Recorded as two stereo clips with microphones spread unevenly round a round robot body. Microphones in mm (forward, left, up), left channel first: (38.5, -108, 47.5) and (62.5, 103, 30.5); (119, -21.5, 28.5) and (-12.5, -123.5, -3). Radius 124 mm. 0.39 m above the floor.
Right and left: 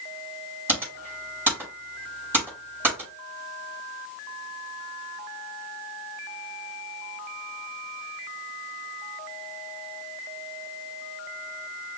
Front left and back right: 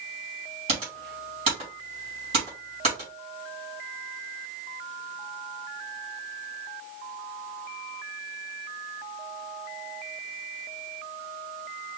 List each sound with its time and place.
0.7 s typing on a keyboard: 160° left, 3.5 m